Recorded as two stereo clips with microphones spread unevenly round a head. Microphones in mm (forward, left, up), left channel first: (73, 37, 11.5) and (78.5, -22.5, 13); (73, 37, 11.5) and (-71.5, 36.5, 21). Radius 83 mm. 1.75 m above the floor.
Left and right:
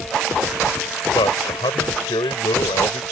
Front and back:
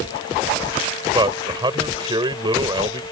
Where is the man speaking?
120° left.